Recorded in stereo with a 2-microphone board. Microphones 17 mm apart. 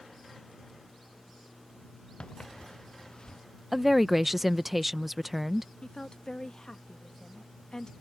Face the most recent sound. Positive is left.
turn(degrees=50)  # may be behind; listen again after turning